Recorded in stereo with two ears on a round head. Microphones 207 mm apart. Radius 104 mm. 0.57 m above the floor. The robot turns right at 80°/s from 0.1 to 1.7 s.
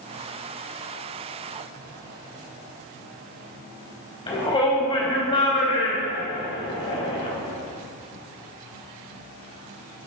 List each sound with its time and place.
4.3 s a shout: 25° left (ahead or behind), 4 m